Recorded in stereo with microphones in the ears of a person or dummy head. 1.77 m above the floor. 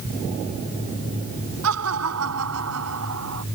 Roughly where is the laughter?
Right.